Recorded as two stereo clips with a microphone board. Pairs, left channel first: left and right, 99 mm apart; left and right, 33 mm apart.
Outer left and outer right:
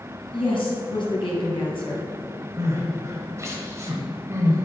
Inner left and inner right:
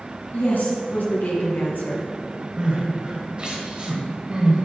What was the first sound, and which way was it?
A woman speaking, 60° left (ahead or behind).